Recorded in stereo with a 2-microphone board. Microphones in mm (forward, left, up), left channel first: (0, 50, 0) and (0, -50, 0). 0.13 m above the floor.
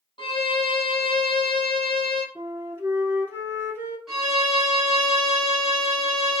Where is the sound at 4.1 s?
5° right (ahead or behind), 1.6 m.